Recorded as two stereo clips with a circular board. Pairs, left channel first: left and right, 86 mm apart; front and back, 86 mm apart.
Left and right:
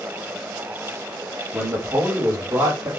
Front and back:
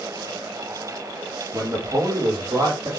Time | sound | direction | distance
1.5 | a man speaking | 150° right | 3.5 m